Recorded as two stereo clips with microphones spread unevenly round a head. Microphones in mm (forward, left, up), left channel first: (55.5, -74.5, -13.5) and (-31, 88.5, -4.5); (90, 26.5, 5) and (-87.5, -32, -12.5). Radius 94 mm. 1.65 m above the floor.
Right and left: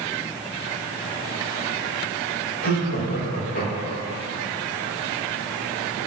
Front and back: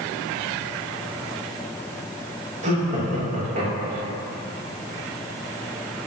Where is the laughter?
110° right, 3 m.